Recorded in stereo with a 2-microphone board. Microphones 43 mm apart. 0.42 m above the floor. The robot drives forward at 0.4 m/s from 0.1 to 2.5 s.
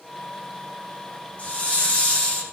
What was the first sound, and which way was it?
A hiss, 35° left (ahead or behind).